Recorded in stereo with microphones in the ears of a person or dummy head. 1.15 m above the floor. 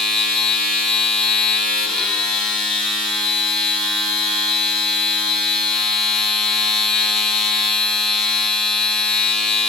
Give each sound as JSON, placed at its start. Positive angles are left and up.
{"t": 0.0, "sound": "a machine running", "side_deg": 5, "distance_m": 6.5}